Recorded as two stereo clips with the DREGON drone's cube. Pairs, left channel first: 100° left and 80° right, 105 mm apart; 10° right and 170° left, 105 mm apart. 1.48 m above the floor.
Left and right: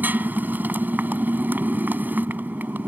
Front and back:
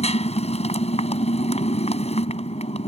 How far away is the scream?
No scream in this recording.